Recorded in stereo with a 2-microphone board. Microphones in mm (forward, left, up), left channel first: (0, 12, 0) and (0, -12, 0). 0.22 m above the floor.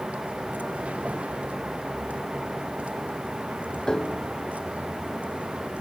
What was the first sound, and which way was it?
A vehicle, 85° right.